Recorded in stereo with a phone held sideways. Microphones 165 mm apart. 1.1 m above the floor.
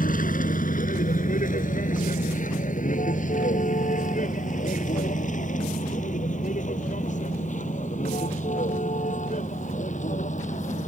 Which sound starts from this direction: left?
A vehicle, at 0.0 s.